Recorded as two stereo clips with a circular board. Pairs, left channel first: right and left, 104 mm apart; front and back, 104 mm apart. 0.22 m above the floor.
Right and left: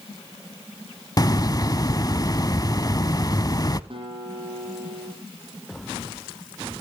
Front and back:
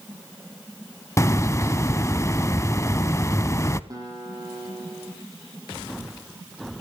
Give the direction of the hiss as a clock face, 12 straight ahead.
2 o'clock.